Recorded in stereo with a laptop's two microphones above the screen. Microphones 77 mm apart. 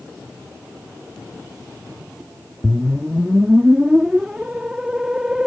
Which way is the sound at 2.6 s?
10° right (ahead or behind).